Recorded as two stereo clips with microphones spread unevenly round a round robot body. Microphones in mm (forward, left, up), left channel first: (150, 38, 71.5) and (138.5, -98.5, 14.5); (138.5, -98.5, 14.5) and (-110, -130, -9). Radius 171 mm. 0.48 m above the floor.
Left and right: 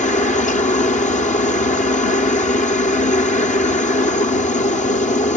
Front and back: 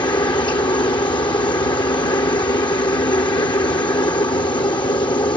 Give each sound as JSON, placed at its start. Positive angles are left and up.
{"t": 0.0, "sound": "a helicopter", "azimuth_deg": 75}